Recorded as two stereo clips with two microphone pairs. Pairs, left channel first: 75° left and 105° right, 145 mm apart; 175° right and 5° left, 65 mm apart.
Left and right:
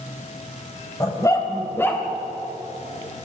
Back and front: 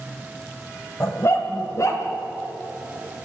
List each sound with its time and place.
1.0 s a dog barking: 140° left, 3 m; by 2.0 s 150° left, 2.5 m